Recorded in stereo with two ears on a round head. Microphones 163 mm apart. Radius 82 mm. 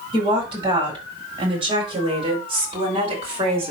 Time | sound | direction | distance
0.1 | a woman speaking | 30° right (ahead or behind) | 5 m